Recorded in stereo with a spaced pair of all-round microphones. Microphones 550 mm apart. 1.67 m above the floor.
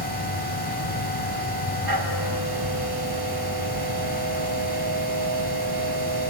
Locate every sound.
0.0 s a machine running: 45° right (ahead or behind), 3 m